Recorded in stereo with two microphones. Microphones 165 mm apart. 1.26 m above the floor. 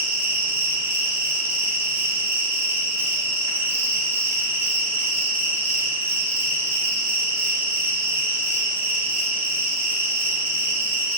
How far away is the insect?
About 2.5 m.